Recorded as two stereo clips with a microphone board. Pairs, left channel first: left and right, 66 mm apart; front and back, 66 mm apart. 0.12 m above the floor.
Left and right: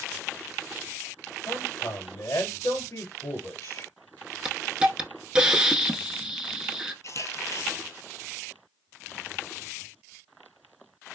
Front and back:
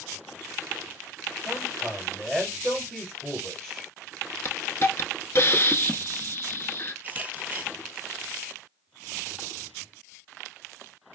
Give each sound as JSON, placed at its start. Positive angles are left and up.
{"t": 1.4, "sound": "a man speaking", "azimuth_deg": 80, "distance_m": 2.5}
{"t": 4.5, "sound": "a hiss", "azimuth_deg": -20, "distance_m": 0.7}
{"t": 7.0, "sound": "a camera shutter", "azimuth_deg": 115, "distance_m": 1.0}